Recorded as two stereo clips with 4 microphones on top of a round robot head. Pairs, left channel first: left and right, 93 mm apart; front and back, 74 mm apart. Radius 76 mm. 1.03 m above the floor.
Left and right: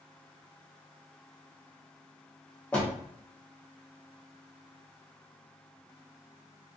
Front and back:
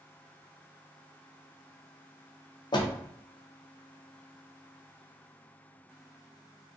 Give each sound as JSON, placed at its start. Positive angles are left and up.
{"t": 2.7, "sound": "a door slam", "azimuth_deg": 15, "distance_m": 0.7}